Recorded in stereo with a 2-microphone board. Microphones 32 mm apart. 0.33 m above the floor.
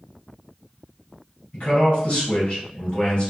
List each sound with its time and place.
1.5 s a man speaking: 45° left (ahead or behind), 1.9 m